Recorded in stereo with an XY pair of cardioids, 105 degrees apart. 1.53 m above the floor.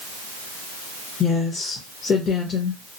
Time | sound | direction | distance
1.2 | a woman speaking | 60° left | 1.0 m